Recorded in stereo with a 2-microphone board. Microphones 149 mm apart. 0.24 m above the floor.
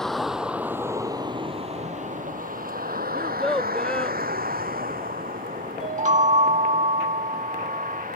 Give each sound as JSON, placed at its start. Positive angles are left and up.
{"t": 0.0, "sound": "a vehicle", "side_deg": 5}
{"t": 3.1, "sound": "a child speaking", "side_deg": 5}
{"t": 5.8, "sound": "a chime", "side_deg": -55}